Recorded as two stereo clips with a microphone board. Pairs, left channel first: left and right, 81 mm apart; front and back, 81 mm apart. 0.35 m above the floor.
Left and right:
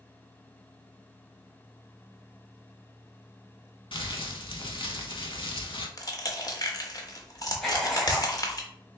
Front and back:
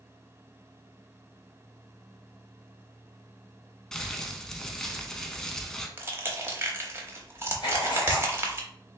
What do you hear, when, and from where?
3.9 s crumpling: 85° left, 0.6 m
6.0 s crushing: 125° left, 0.8 m
7.6 s writing: 5° left, 1.5 m